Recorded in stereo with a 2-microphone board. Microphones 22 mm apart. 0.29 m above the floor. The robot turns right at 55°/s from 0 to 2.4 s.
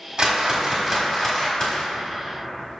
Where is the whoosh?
40° right, 1.4 m; by 1.9 s 55° left, 1.4 m.